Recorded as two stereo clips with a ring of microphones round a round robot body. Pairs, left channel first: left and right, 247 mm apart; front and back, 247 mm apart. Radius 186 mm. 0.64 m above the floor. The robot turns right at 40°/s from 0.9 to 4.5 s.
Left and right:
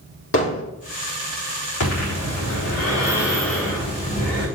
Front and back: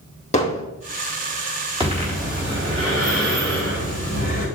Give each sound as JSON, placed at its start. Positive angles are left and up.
{"t": 0.3, "sound": "hammering", "azimuth_deg": 65, "distance_m": 2.5}
{"t": 1.8, "sound": "breathing", "azimuth_deg": 110, "distance_m": 3.5}